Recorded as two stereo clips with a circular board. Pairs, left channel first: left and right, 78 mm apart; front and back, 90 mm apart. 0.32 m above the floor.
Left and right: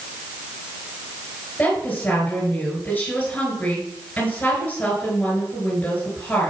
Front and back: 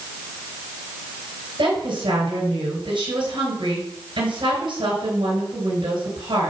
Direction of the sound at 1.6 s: 160° left.